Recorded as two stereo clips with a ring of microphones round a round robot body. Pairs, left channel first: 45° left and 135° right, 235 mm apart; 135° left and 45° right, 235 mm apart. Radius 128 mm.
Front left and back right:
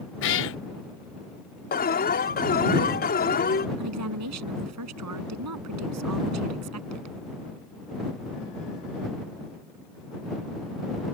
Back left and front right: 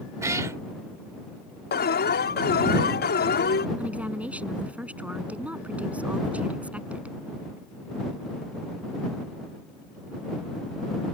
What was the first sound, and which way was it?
A cat meowing, 30° left.